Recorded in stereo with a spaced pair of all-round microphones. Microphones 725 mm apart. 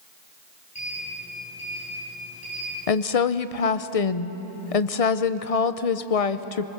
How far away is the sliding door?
About 10 m.